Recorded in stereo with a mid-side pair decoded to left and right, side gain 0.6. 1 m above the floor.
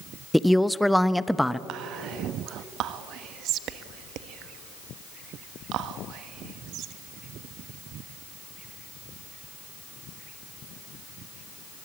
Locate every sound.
0.3 s a woman speaking: 5° left, 0.7 m
1.7 s whispering: 60° right, 1.3 m